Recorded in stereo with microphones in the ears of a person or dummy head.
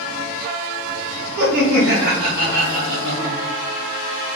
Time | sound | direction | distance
1.4 | laughter | 80° right | 1.2 m